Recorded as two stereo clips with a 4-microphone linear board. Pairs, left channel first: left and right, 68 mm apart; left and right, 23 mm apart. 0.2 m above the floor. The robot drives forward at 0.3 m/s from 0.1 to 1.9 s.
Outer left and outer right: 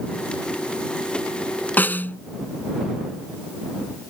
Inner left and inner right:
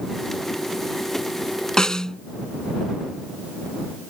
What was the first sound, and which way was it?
A snare drum, 25° left (ahead or behind).